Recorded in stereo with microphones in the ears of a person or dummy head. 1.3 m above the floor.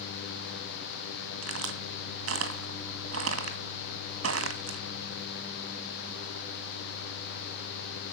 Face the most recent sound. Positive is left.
turn(degrees=-85)